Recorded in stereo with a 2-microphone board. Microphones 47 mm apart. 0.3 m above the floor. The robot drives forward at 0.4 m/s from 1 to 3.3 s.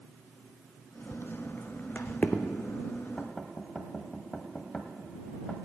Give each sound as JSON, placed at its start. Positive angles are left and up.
{"t": 1.1, "sound": "footsteps", "side_deg": 60, "distance_m": 0.6}
{"t": 3.2, "sound": "knocking", "side_deg": 10, "distance_m": 1.2}